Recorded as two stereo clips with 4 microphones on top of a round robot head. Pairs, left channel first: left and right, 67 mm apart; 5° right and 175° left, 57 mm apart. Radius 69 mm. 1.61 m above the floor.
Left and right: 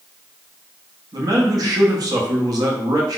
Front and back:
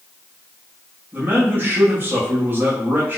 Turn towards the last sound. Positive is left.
turn(degrees=-120)